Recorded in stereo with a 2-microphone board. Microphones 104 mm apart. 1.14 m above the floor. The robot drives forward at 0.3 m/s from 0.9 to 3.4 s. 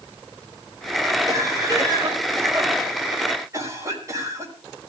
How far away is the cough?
About 5.5 m.